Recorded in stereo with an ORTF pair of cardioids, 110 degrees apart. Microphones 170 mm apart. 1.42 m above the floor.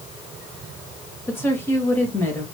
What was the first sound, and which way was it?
A woman speaking, 15° left.